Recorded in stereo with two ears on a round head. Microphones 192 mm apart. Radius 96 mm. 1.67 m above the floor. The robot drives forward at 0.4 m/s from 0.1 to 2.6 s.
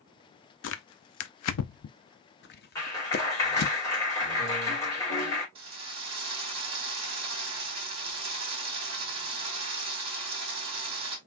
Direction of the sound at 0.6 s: 60° left (ahead or behind).